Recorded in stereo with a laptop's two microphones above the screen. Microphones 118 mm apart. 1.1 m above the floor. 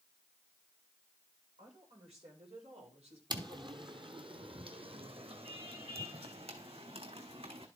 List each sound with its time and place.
1.6 s a woman speaking: 60° right (ahead or behind), 5 m; by 3.2 s 65° right (ahead or behind), 4 m
3.3 s footsteps: 40° right (ahead or behind), 1.3 m; by 7.7 s 55° right (ahead or behind), 3 m